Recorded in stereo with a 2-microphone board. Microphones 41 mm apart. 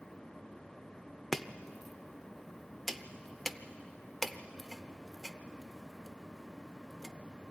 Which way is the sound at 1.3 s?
5° left (ahead or behind).